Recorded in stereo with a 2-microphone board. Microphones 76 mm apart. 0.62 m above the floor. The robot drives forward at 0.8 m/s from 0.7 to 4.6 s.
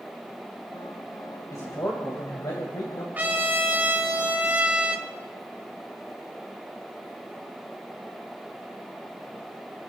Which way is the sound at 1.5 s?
55° left (ahead or behind).